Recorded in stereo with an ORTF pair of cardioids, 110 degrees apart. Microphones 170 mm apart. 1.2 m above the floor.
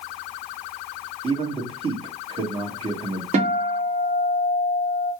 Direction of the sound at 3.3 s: 40° right.